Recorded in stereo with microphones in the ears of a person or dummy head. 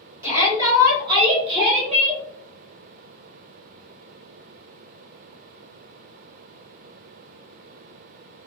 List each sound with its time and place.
0.2 s a shout: 20° right (ahead or behind), 1.4 m; by 2.2 s 30° right (ahead or behind), 0.8 m